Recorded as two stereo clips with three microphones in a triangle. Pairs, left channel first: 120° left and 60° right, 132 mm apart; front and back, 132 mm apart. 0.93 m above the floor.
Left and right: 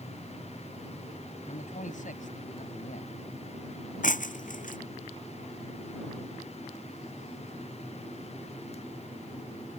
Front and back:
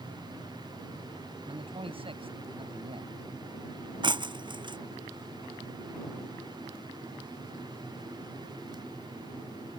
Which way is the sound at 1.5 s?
135° left.